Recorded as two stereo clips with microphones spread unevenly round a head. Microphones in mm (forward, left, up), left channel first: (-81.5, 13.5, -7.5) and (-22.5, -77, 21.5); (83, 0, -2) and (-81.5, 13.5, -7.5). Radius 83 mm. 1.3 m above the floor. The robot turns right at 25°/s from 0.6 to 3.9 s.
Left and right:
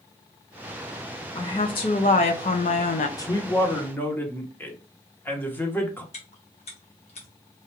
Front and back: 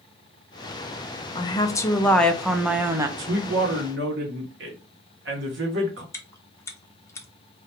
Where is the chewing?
70° left, 0.6 m.